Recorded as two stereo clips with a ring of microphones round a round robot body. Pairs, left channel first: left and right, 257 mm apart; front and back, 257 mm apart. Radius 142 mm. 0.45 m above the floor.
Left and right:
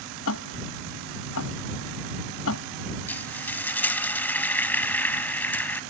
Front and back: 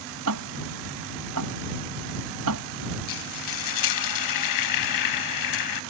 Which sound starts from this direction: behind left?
Ticking, at 0.3 s.